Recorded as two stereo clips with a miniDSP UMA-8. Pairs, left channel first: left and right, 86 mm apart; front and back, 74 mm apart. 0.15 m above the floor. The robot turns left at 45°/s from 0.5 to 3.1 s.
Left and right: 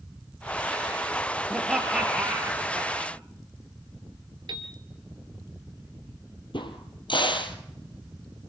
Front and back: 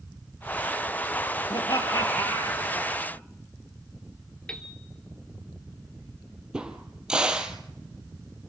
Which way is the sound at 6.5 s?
100° left.